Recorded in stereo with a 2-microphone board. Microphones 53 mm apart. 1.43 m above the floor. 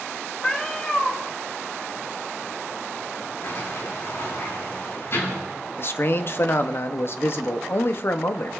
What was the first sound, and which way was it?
A cat meowing, 20° left (ahead or behind).